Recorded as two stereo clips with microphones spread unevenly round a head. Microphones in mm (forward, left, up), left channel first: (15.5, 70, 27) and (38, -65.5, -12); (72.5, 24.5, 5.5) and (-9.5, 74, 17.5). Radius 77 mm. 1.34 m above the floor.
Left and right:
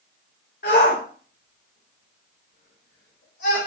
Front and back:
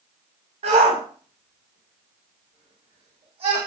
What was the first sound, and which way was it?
A shout, 140° left.